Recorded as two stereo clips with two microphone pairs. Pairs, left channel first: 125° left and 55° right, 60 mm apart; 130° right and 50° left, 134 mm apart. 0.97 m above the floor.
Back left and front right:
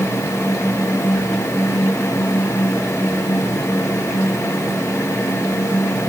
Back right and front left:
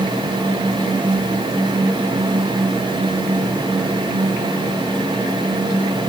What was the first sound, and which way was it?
Only background noise.